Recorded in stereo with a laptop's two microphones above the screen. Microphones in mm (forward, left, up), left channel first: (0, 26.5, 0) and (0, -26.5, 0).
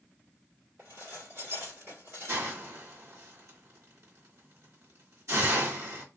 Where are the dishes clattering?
50° right (ahead or behind), 1.8 m.